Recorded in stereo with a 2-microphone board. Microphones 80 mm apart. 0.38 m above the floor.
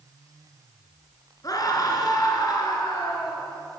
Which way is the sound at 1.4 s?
45° left (ahead or behind).